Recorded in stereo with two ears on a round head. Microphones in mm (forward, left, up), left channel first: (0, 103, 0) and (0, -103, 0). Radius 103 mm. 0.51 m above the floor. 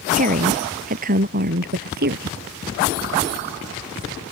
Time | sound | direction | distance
0.1 | a woman speaking | 35° right (ahead or behind) | ?